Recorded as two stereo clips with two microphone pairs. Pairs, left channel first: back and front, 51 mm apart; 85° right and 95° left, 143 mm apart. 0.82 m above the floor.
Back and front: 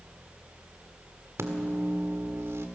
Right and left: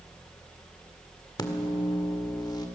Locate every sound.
1.4 s a microwave: 25° right, 1.7 m